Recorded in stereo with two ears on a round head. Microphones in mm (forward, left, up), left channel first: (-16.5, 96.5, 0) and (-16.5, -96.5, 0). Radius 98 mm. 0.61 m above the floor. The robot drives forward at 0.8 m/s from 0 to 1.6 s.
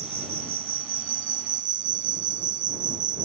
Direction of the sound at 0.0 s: 75° right (ahead or behind).